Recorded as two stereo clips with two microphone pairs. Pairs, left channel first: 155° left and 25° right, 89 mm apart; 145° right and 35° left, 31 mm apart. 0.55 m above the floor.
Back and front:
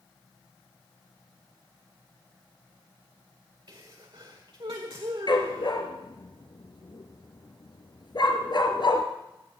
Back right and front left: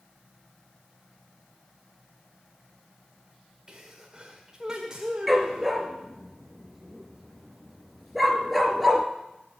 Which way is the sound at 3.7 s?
25° right.